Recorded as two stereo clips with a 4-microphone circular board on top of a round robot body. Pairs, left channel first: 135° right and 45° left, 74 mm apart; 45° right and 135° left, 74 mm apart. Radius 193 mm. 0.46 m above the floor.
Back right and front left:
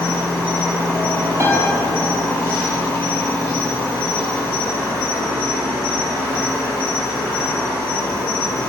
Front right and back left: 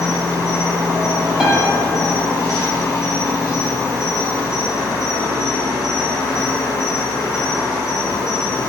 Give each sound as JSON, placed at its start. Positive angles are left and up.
{"t": 0.0, "sound": "an insect", "azimuth_deg": -80, "distance_m": 1.6}
{"t": 1.4, "sound": "a piano", "azimuth_deg": 60, "distance_m": 0.9}